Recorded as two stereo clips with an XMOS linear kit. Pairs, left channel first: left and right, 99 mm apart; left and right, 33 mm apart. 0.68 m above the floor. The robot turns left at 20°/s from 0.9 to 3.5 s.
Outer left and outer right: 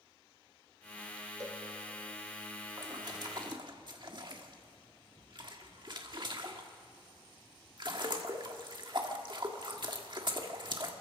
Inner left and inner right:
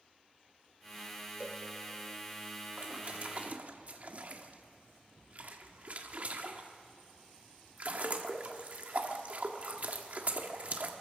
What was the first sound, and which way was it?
A cowbell, 35° right (ahead or behind).